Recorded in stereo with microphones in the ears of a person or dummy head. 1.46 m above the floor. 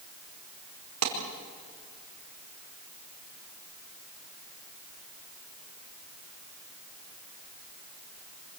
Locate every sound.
1.0 s a clap: 85° right, 4.5 m